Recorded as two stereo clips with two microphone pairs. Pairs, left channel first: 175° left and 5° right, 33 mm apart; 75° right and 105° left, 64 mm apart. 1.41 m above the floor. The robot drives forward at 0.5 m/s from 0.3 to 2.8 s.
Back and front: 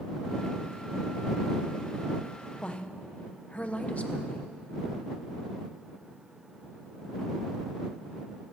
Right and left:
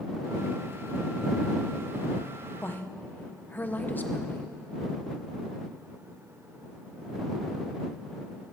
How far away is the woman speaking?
About 1.1 m.